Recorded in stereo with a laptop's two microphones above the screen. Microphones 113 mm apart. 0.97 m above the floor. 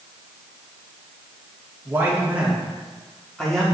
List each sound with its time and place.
1.9 s a man speaking: 20° right (ahead or behind), 2.0 m; by 3.6 s 5° left (ahead or behind), 2.5 m